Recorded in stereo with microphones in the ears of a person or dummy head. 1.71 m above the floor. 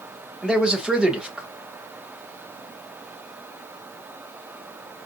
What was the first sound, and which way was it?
A man speaking, 5° right (ahead or behind).